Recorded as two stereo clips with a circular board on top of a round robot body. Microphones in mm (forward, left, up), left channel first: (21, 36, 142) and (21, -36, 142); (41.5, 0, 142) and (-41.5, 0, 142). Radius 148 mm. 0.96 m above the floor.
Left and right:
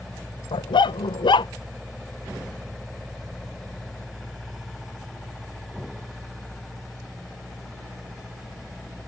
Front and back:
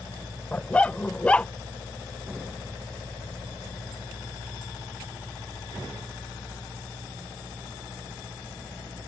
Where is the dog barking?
80° left.